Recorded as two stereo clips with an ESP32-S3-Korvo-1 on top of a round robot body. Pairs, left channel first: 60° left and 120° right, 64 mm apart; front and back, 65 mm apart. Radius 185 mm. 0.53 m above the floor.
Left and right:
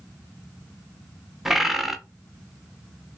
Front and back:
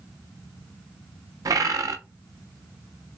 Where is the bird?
155° left, 0.6 m.